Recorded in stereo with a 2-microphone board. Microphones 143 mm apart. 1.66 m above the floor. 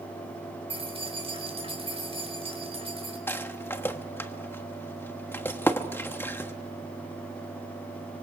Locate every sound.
0.7 s keys jangling: 40° right (ahead or behind), 4.5 m
3.3 s a rattle: 15° left (ahead or behind), 1.2 m